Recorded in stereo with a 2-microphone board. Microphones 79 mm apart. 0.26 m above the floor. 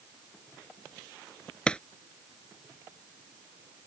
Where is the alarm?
No alarm in this recording.